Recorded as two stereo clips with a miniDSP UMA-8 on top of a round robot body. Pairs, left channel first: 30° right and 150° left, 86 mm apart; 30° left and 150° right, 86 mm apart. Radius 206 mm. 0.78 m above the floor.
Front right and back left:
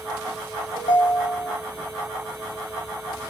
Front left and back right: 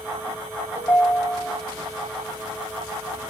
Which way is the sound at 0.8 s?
25° right.